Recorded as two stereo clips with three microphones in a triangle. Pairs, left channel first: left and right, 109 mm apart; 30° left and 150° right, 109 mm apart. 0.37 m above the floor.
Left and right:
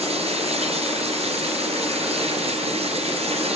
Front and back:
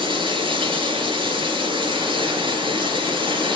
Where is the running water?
110° right, 3 m.